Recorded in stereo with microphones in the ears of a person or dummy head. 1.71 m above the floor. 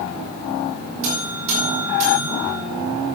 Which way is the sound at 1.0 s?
70° right (ahead or behind).